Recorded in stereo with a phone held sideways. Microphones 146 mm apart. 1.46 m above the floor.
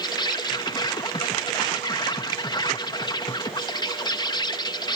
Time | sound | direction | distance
0.0 | an insect | 30° left (ahead or behind) | ?